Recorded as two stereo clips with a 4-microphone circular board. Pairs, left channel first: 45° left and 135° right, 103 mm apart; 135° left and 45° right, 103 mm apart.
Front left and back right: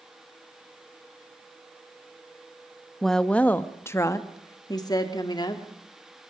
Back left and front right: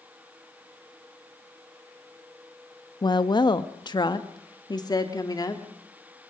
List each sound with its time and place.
3.0 s a woman speaking: 130° left, 0.9 m; by 5.6 s 85° left, 2.0 m